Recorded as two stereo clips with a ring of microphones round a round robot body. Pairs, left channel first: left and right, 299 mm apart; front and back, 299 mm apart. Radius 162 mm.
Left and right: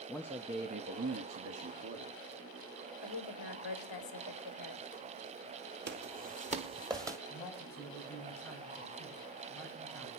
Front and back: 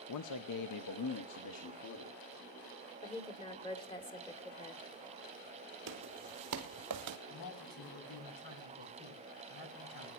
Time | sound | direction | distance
0.1 | a man speaking | straight ahead | 0.7 m
3.0 | a woman speaking | 75° left | 2.5 m
5.9 | footsteps | 135° right | 1.4 m
7.3 | a man speaking | 5° left | 4.5 m